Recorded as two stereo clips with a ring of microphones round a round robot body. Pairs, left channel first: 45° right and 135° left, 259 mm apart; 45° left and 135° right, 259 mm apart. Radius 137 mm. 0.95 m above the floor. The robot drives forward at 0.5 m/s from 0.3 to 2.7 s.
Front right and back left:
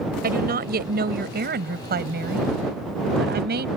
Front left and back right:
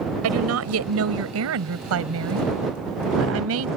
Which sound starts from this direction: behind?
A woman speaking, at 0.2 s.